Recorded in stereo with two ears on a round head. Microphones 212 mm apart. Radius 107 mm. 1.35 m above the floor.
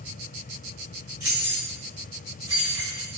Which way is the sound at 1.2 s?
15° right (ahead or behind).